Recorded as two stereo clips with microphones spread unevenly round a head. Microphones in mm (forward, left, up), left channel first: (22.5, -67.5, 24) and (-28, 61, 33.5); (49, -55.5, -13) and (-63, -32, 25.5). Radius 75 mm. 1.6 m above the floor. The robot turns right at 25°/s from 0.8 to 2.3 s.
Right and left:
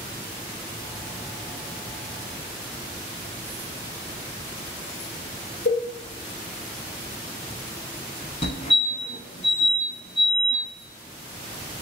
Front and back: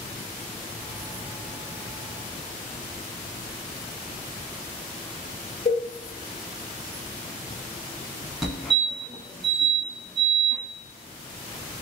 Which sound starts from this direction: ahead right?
A cowbell, at 5.7 s.